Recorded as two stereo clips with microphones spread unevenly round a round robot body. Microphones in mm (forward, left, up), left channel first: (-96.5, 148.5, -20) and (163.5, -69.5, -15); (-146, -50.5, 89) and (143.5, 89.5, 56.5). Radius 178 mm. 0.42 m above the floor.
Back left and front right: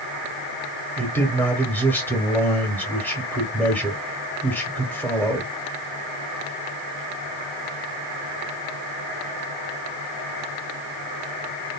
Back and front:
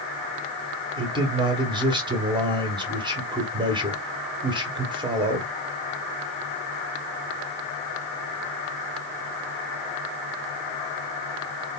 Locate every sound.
1.0 s a man speaking: 65° left, 0.9 m